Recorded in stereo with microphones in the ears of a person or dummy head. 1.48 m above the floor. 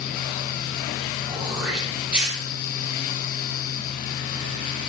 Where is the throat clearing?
5° right (ahead or behind), 4.5 m.